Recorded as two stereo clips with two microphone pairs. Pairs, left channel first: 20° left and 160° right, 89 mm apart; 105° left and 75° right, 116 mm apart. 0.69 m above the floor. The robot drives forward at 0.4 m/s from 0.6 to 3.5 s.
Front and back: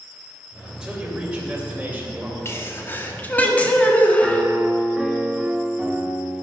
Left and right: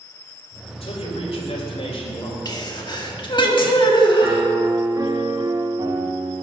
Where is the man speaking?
120° left, 3 m; by 2.4 s 130° left, 3.5 m.